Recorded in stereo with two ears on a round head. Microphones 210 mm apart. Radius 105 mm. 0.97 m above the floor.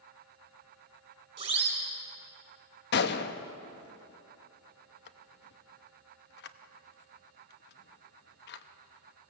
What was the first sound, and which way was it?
A siren, 25° right (ahead or behind).